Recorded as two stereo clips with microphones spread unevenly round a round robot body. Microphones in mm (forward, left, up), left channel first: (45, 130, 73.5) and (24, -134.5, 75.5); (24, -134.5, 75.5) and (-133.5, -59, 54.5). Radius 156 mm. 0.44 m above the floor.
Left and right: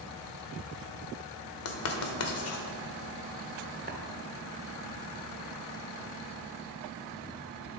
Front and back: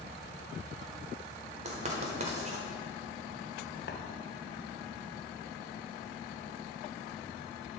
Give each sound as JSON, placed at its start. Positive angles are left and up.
{"t": 1.6, "sound": "writing", "azimuth_deg": 110, "distance_m": 1.1}
{"t": 3.9, "sound": "tapping", "azimuth_deg": -45, "distance_m": 1.3}